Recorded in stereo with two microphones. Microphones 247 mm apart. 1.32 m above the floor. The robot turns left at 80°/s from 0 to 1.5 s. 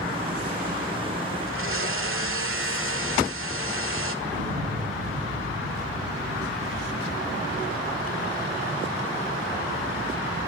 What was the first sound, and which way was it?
A blender, 55° right (ahead or behind).